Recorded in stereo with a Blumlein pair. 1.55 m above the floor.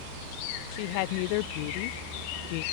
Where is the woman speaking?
45° left.